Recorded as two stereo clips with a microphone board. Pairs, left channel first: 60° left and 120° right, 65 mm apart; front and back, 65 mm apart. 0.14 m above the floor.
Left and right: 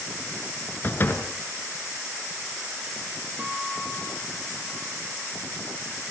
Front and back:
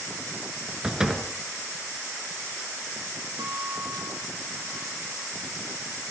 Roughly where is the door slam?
Left.